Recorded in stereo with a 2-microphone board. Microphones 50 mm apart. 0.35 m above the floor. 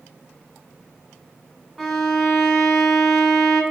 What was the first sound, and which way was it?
A violin, centre (ahead or behind).